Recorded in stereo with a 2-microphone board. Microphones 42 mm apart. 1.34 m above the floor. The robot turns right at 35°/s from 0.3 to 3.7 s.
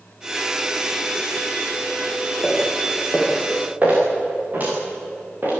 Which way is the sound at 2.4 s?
20° left (ahead or behind).